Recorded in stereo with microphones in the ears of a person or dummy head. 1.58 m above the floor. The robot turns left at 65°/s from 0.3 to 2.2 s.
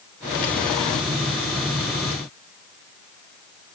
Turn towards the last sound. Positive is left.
No sound to turn to.